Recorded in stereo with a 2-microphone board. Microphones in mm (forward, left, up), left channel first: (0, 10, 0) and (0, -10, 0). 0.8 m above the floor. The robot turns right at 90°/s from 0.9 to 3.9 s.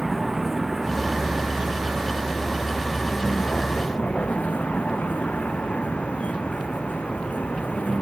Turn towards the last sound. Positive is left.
turn(degrees=90)